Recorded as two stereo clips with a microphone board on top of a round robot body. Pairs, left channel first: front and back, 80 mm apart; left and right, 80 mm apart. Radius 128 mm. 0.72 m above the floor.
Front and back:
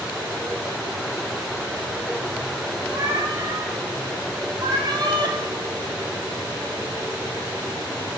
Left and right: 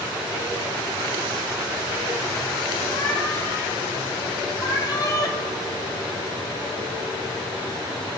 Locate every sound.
2.9 s a cat meowing: 130° left, 6 m; by 5.4 s 140° left, 3 m